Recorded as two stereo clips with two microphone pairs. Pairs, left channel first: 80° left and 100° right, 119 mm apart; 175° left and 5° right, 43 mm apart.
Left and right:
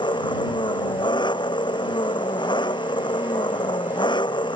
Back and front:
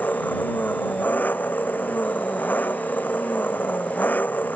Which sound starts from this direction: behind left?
An engine running, at 0.0 s.